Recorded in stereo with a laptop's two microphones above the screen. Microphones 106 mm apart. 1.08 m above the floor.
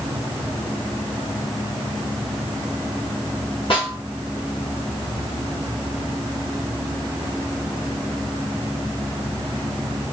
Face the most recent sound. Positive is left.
turn(degrees=55)  # may be behind; listen again after turning